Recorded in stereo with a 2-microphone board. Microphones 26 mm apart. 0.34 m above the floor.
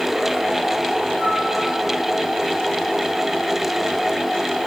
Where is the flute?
45° left (ahead or behind), 4.5 m.